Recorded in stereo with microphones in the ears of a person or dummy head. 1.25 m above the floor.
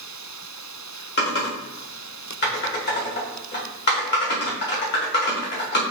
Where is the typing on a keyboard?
45° left (ahead or behind), 1.3 m.